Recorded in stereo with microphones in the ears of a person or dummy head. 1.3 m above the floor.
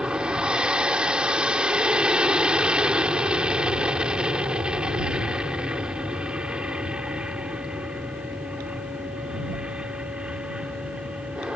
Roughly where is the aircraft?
Centre.